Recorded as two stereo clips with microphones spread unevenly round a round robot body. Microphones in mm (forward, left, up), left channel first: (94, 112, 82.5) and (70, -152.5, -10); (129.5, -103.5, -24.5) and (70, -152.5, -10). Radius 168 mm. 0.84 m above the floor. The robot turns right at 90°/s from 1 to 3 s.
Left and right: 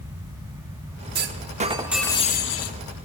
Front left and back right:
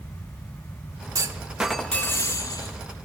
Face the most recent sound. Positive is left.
turn(degrees=75)